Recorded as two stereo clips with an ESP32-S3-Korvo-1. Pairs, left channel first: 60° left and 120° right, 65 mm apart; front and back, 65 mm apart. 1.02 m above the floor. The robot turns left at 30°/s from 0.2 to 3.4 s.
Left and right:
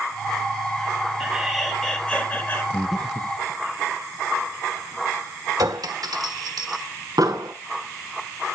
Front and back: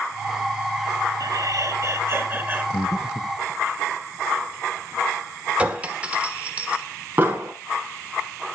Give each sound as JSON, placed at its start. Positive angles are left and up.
{"t": 1.2, "sound": "laughter", "azimuth_deg": 155, "distance_m": 3.5}
{"t": 2.7, "sound": "breathing", "azimuth_deg": -25, "distance_m": 0.7}
{"t": 5.6, "sound": "a clink", "azimuth_deg": -110, "distance_m": 1.5}
{"t": 7.2, "sound": "an explosion", "azimuth_deg": -120, "distance_m": 3.5}